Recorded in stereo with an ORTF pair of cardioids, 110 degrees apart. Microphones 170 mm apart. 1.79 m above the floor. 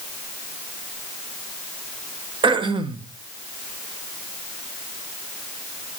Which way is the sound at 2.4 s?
30° right.